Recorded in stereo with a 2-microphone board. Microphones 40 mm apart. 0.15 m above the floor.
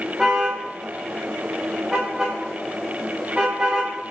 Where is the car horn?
10° right (ahead or behind), 9.5 m; by 3.9 s 25° right (ahead or behind), 11.5 m.